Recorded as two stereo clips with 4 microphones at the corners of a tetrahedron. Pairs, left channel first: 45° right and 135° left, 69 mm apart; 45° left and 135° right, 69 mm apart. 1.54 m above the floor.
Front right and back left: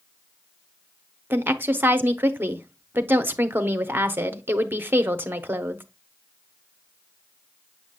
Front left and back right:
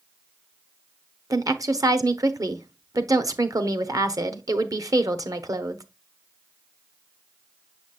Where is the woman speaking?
165° right, 0.9 m.